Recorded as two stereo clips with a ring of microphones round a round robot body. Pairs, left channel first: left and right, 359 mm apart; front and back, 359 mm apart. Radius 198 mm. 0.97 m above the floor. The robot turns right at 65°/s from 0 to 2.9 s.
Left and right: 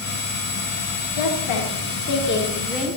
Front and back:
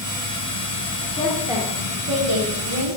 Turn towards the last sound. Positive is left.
turn(degrees=-170)